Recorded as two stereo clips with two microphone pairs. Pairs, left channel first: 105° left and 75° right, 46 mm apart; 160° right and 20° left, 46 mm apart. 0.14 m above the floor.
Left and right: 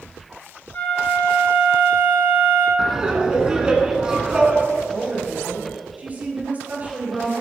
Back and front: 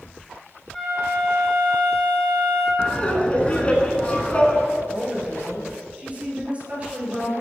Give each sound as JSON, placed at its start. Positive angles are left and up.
{"t": 0.7, "sound": "a flute", "azimuth_deg": 130, "distance_m": 2.5}
{"t": 2.8, "sound": "laughter", "azimuth_deg": -130, "distance_m": 1.2}
{"t": 4.8, "sound": "a woman speaking", "azimuth_deg": -30, "distance_m": 2.0}